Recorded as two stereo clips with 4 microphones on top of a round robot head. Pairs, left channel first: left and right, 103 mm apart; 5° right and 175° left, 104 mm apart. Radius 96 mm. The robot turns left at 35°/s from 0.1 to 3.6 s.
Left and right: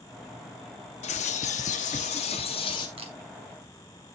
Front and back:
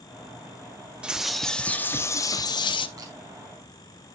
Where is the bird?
95° left, 0.8 m; by 2.9 s 30° left, 0.8 m.